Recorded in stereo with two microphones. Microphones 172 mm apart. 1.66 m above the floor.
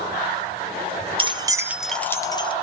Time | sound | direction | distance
1.2 | keys jangling | 30° right (ahead or behind) | 0.6 m